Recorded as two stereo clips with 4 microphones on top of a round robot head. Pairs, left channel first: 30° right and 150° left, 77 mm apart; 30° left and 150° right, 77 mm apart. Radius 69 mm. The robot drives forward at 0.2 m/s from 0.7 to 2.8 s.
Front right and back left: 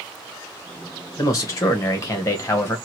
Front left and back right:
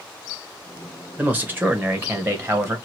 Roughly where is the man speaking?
Right.